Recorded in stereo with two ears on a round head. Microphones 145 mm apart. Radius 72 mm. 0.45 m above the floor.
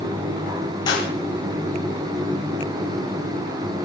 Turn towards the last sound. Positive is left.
turn(degrees=30)  # may be behind; listen again after turning